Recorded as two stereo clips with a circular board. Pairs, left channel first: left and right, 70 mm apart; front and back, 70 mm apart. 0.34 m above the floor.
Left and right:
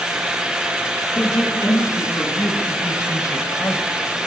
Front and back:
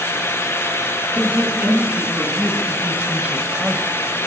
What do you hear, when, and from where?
1.1 s a man speaking: 120° left, 4 m; by 3.9 s 110° left, 1.3 m